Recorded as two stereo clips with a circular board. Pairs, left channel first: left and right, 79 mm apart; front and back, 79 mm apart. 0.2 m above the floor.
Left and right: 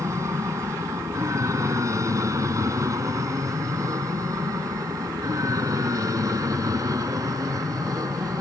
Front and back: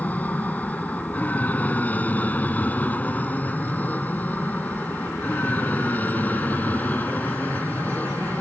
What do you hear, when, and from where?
0.0 s an aircraft: 60° right; by 8.4 s 65° right